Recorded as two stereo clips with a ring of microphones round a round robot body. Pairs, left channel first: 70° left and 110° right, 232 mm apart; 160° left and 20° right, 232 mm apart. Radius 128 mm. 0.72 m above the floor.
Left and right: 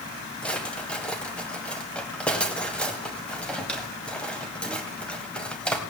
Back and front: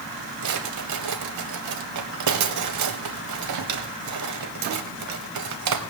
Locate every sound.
0.4 s a drawer: 20° right, 1.4 m